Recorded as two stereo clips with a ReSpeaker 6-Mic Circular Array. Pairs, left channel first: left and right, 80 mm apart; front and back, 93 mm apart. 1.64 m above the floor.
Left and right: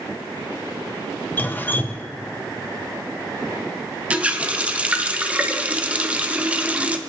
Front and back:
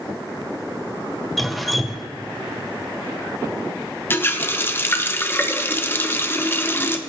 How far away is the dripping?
About 0.6 m.